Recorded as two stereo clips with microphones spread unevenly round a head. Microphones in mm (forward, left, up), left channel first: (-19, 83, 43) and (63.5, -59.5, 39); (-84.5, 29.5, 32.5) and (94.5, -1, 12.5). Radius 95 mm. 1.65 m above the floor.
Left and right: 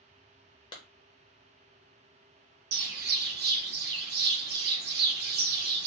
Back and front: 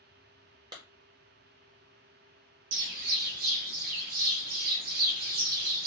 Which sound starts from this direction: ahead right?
A bird, at 2.7 s.